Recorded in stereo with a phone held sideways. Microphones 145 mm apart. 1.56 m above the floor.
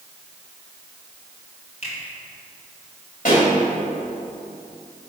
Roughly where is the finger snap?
Left.